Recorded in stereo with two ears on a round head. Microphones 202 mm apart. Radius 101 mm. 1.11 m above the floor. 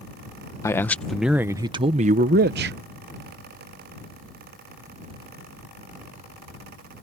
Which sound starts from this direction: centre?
A man speaking, at 0.6 s.